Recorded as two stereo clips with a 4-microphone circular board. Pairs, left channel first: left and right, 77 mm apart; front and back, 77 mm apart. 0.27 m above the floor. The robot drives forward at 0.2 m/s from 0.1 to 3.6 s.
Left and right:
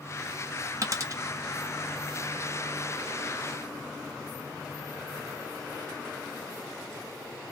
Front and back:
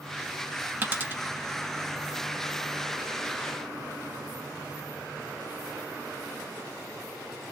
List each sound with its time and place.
0.8 s a dropped coin: 120° right, 0.7 m; by 1.2 s 125° right, 0.7 m